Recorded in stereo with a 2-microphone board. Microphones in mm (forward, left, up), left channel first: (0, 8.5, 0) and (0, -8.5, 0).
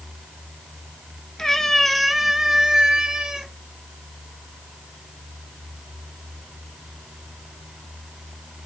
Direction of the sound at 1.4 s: 40° left (ahead or behind).